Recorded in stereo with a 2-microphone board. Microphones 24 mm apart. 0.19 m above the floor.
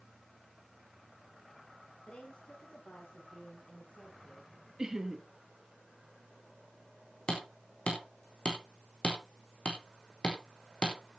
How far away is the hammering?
About 4 m.